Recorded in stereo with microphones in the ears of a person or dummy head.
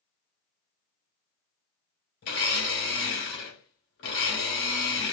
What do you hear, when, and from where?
2.2 s a blender: 60° left (ahead or behind), 1.5 m